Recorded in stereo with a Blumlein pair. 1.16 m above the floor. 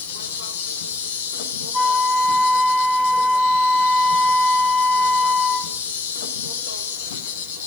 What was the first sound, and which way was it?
An insect, 55° left.